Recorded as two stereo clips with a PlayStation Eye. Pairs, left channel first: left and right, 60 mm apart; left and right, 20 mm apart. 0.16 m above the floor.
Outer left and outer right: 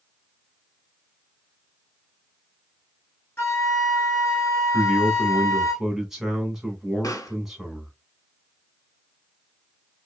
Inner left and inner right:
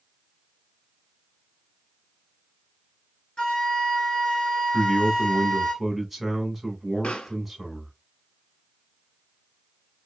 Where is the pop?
80° left, 0.6 m.